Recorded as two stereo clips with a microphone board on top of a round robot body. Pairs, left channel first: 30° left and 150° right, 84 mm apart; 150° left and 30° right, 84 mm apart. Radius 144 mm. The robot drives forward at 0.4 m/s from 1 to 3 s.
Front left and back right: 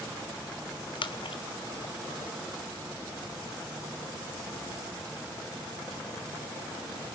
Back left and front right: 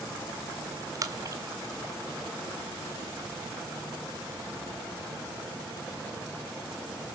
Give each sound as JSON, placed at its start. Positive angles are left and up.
{"t": 0.9, "sound": "a splash", "azimuth_deg": 15, "distance_m": 1.5}